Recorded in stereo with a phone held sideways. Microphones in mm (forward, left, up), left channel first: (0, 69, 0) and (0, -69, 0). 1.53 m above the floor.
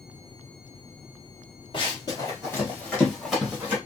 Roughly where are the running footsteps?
Left.